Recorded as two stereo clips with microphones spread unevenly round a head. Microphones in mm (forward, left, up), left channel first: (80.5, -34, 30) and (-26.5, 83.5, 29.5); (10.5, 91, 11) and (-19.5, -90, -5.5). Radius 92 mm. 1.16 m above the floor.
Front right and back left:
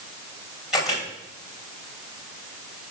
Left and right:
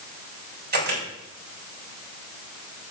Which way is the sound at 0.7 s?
140° right.